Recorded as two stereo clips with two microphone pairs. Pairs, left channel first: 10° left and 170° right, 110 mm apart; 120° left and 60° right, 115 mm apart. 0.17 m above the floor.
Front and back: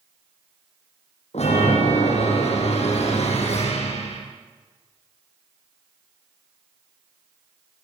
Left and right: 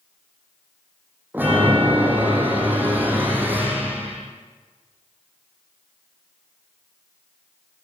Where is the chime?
15° left, 8.5 m.